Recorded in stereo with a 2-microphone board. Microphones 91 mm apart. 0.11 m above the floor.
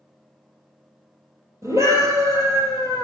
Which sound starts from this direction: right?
A scream, at 1.6 s.